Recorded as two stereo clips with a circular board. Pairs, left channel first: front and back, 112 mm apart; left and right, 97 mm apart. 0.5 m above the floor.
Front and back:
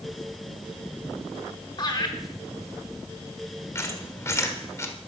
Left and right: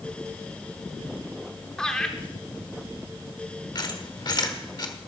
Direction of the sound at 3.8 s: 60° left.